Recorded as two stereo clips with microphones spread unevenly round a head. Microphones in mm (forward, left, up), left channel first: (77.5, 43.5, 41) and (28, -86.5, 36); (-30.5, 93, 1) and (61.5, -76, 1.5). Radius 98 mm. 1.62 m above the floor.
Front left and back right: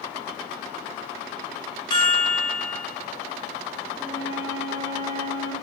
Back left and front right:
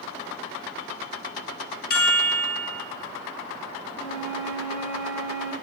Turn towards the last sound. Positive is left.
turn(degrees=175)